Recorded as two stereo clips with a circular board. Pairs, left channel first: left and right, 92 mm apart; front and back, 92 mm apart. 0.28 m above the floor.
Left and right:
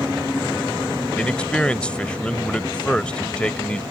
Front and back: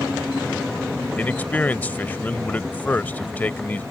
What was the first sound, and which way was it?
A man speaking, 35° left.